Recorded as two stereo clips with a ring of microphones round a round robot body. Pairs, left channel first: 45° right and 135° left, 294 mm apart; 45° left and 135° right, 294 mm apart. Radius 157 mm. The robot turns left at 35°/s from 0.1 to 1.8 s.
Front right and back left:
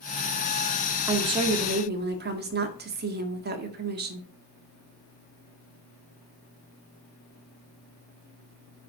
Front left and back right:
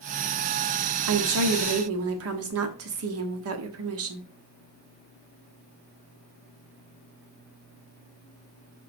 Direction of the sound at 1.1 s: 145° right.